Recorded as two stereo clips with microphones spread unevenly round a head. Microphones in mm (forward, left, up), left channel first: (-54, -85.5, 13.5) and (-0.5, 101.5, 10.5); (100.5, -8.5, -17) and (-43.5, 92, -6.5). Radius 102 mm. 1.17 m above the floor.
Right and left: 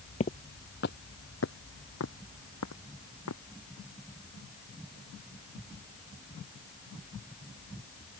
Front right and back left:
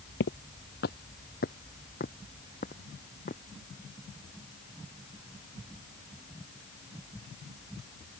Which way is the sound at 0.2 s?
50° right.